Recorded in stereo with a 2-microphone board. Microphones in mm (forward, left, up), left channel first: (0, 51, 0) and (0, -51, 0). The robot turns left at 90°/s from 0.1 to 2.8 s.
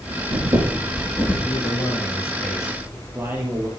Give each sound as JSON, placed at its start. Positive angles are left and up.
{"t": 0.1, "sound": "breathing", "azimuth_deg": -90, "distance_m": 6.5}
{"t": 1.4, "sound": "a man speaking", "azimuth_deg": 100, "distance_m": 3.0}